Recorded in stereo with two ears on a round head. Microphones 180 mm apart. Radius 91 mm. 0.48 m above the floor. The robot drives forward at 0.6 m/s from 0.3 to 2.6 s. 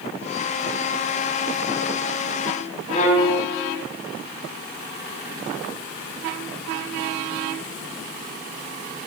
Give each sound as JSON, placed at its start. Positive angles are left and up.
{"t": 2.9, "sound": "a violin", "side_deg": 35, "distance_m": 1.1}